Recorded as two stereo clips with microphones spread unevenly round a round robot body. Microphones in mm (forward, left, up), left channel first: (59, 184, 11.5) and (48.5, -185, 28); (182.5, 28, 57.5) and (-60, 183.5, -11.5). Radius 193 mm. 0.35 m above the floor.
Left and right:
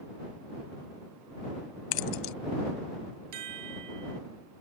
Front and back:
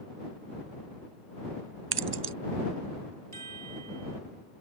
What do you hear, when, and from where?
1.9 s keys jangling: 115° left
3.3 s a chime: 135° right